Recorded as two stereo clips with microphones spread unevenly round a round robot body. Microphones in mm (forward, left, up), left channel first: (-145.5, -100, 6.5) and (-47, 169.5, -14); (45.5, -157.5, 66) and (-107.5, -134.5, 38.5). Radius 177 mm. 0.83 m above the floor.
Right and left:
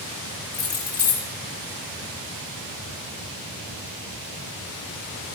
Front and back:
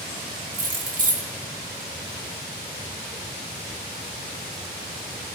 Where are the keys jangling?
155° right, 1.5 m.